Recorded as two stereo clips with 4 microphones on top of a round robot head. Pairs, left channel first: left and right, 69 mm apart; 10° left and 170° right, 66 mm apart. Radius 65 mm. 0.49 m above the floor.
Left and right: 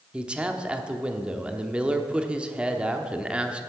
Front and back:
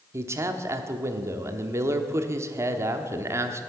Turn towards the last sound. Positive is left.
turn(degrees=-160)